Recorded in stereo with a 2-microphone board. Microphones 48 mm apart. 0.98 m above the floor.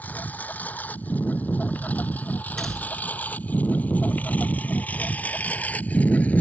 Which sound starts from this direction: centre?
A door slam, at 2.6 s.